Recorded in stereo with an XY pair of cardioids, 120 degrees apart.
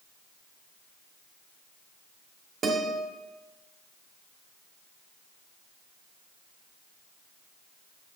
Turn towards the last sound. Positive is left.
turn(degrees=-50)